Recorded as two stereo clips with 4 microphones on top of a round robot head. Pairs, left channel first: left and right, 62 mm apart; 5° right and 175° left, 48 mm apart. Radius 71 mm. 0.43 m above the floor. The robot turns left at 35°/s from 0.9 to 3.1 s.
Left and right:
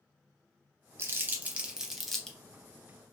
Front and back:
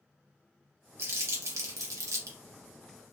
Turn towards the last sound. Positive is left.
turn(degrees=145)